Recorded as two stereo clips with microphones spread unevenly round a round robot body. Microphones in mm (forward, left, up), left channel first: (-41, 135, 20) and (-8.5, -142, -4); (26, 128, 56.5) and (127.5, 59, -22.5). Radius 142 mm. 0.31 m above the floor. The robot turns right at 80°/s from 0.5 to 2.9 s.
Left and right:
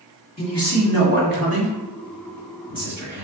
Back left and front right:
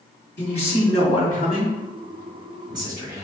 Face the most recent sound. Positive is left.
turn(degrees=0)